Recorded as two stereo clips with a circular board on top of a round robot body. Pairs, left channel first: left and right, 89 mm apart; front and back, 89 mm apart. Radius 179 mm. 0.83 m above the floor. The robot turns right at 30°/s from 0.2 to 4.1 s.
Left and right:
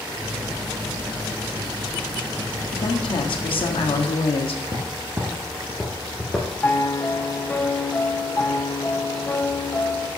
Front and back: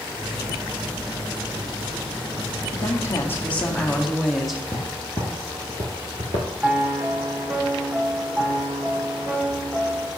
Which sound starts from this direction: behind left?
A piano, at 6.6 s.